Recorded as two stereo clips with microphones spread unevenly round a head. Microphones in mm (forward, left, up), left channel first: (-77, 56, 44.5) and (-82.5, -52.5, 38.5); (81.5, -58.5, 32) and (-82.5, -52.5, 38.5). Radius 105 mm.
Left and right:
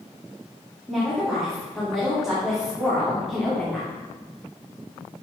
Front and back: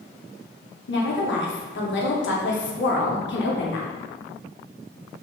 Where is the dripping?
I don't hear dripping.